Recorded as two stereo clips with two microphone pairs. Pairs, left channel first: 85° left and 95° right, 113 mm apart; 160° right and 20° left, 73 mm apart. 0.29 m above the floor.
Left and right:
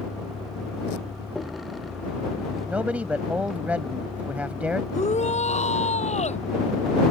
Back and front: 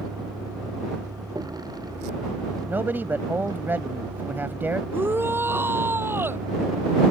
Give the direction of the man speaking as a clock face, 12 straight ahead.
1 o'clock.